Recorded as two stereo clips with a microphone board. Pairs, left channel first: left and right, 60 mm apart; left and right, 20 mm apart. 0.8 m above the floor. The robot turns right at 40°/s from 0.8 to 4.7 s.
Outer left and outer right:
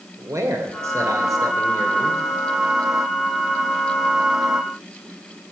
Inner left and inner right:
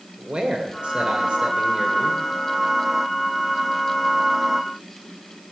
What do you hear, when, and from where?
0.2 s a man speaking: 115° right, 2.5 m; by 2.2 s 55° right, 2.5 m